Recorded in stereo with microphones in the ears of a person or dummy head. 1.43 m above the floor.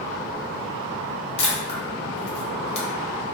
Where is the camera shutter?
35° left (ahead or behind), 0.8 m.